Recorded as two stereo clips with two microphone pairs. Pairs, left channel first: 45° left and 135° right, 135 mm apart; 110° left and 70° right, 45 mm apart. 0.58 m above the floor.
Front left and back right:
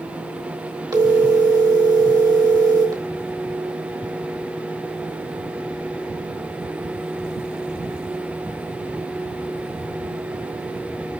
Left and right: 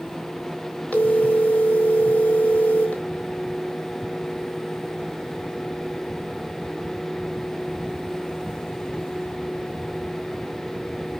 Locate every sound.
0.9 s a phone ringing: 165° left, 1.4 m